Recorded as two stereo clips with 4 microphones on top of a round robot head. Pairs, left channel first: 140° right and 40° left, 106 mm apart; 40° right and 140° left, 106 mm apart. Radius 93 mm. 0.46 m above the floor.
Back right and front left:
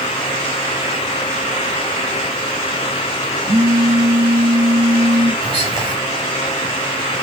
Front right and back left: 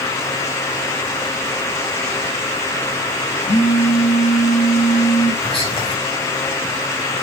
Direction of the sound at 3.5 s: 25° right.